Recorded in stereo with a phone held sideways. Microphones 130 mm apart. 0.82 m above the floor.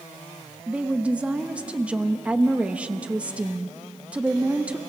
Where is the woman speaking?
10° right (ahead or behind), 0.9 m.